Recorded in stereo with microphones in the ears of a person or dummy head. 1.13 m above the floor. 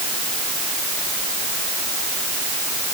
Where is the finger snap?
No finger snap in this recording.